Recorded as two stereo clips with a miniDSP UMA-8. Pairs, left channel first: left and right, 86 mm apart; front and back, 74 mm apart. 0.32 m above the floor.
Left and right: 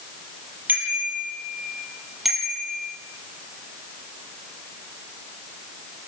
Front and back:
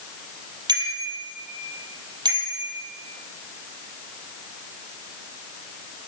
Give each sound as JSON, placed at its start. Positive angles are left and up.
{"t": 0.7, "sound": "a bicycle bell", "azimuth_deg": -160, "distance_m": 6.0}